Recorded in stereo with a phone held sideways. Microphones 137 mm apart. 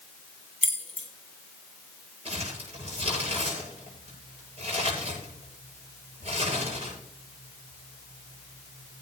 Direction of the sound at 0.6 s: 45° left (ahead or behind).